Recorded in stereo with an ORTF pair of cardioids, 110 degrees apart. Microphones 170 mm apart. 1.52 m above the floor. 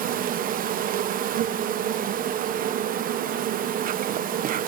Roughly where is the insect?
Ahead right.